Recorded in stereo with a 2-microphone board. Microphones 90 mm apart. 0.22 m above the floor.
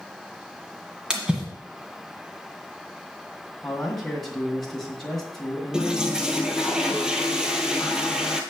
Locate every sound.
1.1 s a splash: 10° right (ahead or behind), 1.7 m
3.6 s a man speaking: 5° left (ahead or behind), 1.9 m
5.7 s a toilet flushing: 5° right (ahead or behind), 1.1 m